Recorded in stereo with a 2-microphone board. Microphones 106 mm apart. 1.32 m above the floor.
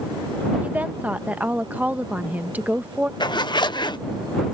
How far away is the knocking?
No knocking in this recording.